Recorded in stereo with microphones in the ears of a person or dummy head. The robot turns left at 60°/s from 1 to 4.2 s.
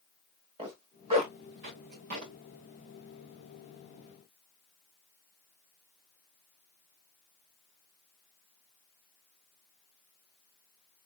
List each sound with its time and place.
0.6 s a zipper: 35° right (ahead or behind), 1.4 m; by 2.3 s 40° right (ahead or behind), 1.4 m